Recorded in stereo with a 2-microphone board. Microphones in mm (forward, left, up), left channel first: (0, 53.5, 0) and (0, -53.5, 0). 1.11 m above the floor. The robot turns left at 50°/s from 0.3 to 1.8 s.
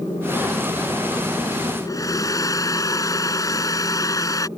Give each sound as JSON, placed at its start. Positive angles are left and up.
{"t": 1.9, "sound": "a hair dryer", "side_deg": 35}